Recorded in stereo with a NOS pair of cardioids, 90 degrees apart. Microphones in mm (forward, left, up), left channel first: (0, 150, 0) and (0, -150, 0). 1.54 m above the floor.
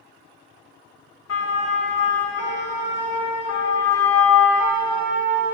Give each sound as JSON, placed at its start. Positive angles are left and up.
{"t": 1.3, "sound": "a siren", "azimuth_deg": 60, "distance_m": 3.0}